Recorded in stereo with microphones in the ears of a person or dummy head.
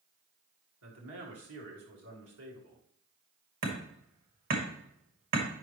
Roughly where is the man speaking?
Right.